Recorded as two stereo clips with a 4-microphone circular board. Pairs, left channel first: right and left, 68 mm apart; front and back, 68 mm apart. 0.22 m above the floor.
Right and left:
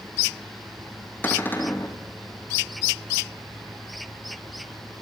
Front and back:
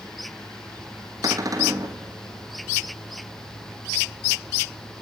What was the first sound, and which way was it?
A cupboard door, 155° right.